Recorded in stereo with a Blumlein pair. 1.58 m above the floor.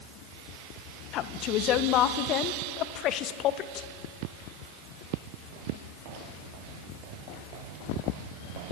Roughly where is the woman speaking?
Ahead left.